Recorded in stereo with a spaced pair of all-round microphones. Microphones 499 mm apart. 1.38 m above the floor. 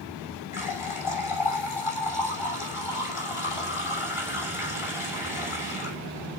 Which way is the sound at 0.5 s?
80° left.